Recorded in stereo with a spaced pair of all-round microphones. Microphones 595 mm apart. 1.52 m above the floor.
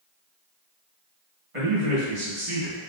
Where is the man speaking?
60° right (ahead or behind), 1.8 m; by 2.9 s 30° right (ahead or behind), 0.7 m.